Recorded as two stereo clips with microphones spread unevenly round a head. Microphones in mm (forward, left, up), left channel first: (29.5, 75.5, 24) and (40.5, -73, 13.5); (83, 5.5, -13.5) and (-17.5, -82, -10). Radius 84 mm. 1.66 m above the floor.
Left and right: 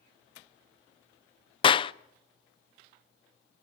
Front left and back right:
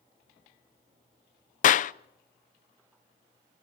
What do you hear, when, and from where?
1.6 s a clap: 45° left, 0.7 m